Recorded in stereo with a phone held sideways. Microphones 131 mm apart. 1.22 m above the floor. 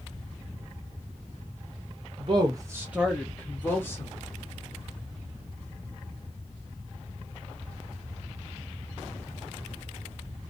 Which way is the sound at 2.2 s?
40° right (ahead or behind).